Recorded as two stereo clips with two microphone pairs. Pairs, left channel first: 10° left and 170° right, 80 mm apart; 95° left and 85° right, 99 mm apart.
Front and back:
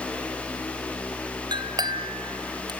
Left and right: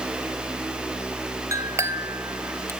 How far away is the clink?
About 1.8 m.